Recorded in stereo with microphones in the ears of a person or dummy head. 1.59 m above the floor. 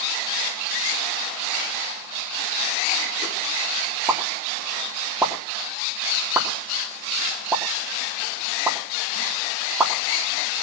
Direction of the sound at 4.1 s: 10° right (ahead or behind).